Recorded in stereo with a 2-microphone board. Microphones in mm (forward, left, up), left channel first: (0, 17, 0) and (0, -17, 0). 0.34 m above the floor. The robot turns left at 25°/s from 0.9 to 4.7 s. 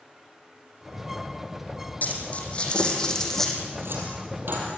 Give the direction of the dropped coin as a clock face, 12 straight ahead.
10 o'clock.